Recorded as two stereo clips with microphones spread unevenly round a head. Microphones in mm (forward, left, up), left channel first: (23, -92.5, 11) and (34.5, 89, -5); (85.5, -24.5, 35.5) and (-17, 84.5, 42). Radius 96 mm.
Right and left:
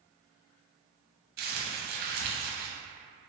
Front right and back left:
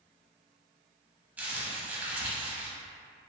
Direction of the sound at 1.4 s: 55° left.